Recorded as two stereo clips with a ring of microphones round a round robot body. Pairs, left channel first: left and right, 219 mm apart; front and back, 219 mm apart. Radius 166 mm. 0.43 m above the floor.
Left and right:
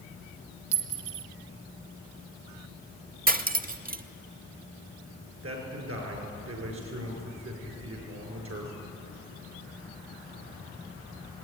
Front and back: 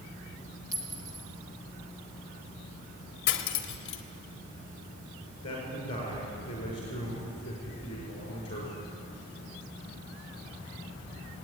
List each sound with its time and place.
0.7 s a clink: 100° right, 1.4 m
3.3 s cutlery clinking: 40° right, 1.0 m
5.4 s a man speaking: 75° right, 6 m